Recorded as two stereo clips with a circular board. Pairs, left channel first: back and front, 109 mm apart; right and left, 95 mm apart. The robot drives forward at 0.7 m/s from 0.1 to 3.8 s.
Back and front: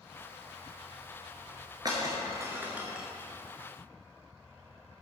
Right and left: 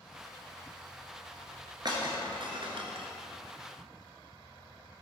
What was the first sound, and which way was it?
Breaking glass, 50° left.